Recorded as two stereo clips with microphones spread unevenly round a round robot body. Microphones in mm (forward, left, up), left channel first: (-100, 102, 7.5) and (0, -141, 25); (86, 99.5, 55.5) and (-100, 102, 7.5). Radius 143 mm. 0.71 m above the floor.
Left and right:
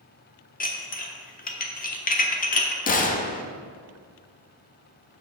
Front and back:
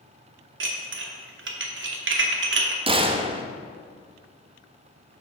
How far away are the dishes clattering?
About 1.0 m.